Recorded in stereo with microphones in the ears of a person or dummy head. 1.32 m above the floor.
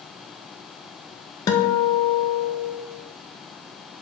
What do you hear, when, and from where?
1.5 s a guitar: 15° left (ahead or behind), 0.5 m